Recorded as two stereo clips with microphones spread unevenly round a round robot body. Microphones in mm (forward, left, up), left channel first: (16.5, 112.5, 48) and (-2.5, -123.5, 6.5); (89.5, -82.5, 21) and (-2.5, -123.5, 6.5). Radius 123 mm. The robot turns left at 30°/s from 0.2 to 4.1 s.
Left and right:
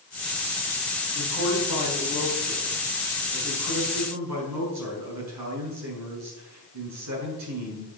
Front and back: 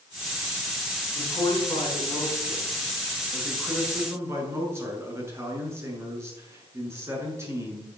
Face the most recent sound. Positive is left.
turn(degrees=-95)